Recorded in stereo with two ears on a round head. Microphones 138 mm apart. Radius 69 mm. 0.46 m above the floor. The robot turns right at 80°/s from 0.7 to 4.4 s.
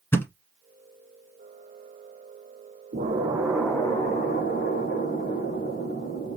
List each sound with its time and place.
0.1 s a thud: 15° left (ahead or behind), 1.1 m
2.9 s an explosion: 50° right, 2.5 m; by 6.4 s 65° left, 2.5 m